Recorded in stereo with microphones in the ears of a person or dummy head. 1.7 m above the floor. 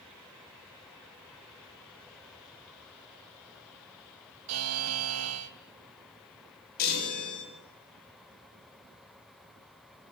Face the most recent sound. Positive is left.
turn(degrees=55)  # may be behind; listen again after turning